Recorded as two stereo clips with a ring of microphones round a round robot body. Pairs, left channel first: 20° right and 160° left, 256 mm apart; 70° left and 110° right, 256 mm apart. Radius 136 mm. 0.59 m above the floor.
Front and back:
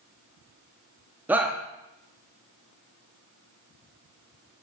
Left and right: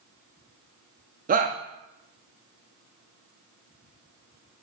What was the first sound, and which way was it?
A shout, 125° right.